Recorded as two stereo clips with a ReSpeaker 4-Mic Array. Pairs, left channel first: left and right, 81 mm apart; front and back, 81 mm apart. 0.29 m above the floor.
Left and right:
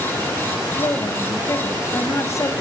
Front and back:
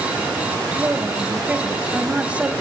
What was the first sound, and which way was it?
A woman speaking, 110° left.